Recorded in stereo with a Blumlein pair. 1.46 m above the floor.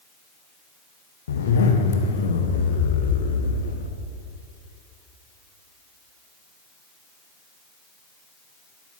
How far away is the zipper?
About 1.1 m.